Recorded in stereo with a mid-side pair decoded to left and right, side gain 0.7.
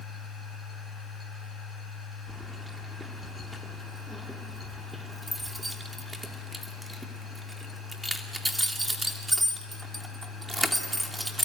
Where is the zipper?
I don't hear a zipper.